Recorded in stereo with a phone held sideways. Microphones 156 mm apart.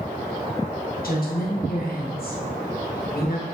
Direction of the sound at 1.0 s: 70° left (ahead or behind).